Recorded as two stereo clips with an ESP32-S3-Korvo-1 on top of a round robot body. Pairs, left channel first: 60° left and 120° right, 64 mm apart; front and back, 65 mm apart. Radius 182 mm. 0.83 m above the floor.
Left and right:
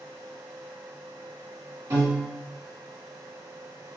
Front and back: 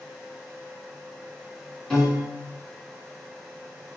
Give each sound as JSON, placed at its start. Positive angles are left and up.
{"t": 1.9, "sound": "a piano", "azimuth_deg": -90, "distance_m": 1.9}